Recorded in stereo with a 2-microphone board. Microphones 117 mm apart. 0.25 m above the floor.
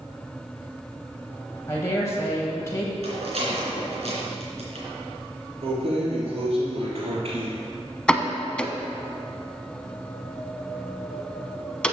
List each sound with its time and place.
1.7 s a woman speaking: 25° left (ahead or behind), 1.3 m
3.0 s a rattle: 65° right (ahead or behind), 3 m
5.6 s keys jangling: 60° right (ahead or behind), 2.5 m
8.1 s a pop: 10° left (ahead or behind), 0.7 m